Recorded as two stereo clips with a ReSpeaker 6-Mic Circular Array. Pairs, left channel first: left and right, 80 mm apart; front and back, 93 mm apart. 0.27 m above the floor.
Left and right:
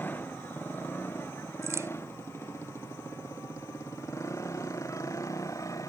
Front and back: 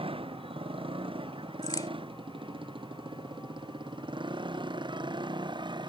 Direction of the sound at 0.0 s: 160° left.